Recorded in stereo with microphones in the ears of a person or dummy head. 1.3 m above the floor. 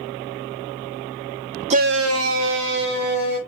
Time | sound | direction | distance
1.7 | a shout | 35° right (ahead or behind) | 0.5 m